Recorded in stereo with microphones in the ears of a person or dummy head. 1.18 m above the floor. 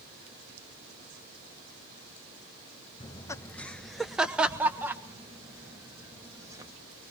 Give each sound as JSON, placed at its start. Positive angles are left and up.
{"t": 3.0, "sound": "laughter", "side_deg": 20, "distance_m": 0.7}